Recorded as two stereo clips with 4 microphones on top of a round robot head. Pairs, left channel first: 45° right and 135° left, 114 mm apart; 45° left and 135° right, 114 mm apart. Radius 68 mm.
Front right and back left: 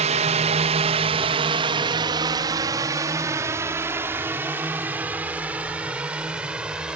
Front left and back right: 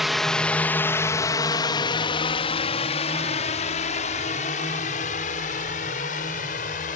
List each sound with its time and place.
0.0 s a drone: 135° left; by 7.0 s 55° left